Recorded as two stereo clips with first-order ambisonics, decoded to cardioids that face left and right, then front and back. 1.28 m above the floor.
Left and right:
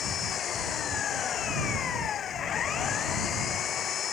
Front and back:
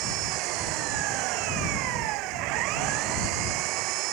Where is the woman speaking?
No woman speaking in this recording.